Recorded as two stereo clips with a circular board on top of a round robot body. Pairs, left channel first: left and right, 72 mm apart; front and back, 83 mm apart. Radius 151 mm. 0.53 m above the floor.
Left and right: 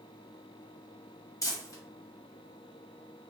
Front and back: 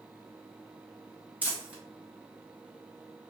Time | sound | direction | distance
1.4 | crumpling | 110° left | 1.4 m